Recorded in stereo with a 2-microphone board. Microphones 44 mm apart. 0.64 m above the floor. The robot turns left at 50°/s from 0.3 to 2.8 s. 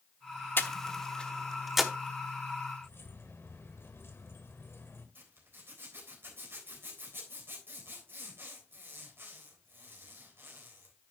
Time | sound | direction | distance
0.6 | breathing | 50° left (ahead or behind) | 0.9 m
2.8 | keys jangling | 65° left (ahead or behind) | 1.9 m
5.2 | a zipper | 55° right (ahead or behind) | 3.5 m